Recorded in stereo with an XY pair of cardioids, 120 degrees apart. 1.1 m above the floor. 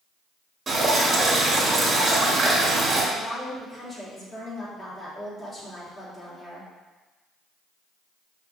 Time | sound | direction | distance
0.7 | dripping | 30° right | 2.5 m
3.1 | a woman speaking | 25° left | 3 m